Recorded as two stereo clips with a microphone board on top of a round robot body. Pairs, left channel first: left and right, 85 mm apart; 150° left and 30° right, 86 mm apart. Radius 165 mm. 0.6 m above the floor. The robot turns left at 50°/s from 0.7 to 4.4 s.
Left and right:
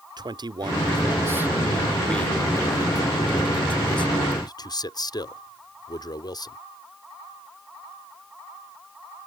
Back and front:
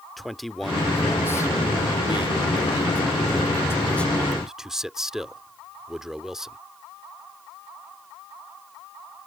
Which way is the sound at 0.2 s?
120° right.